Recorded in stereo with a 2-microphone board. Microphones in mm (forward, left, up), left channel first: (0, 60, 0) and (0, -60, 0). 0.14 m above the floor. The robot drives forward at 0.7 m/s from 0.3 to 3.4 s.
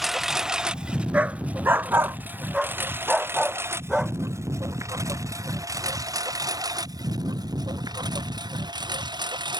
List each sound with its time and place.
0.0 s a lawn mower: centre (ahead or behind); by 9.6 s 35° right (ahead or behind)
1.1 s a dog barking: 10° right (ahead or behind); by 2.2 s 20° right (ahead or behind)
2.5 s a dog barking: 5° right (ahead or behind)